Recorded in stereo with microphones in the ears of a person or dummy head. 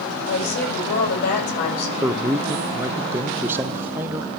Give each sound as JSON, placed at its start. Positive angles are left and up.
{"t": 0.3, "sound": "a woman speaking", "side_deg": 60, "distance_m": 7.0}
{"t": 2.0, "sound": "a man speaking", "side_deg": -10, "distance_m": 0.9}